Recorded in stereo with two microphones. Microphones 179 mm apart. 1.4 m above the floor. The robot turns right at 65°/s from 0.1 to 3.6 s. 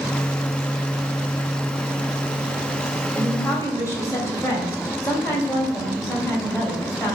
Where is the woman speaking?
15° right (ahead or behind), 3 m; by 7.2 s 15° left (ahead or behind), 3 m.